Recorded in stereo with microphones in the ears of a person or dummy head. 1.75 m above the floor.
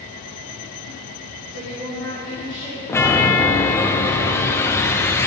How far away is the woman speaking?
About 1.4 m.